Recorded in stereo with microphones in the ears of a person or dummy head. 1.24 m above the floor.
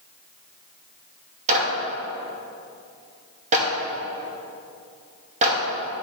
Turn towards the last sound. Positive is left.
turn(degrees=-40)  # may be behind; listen again after turning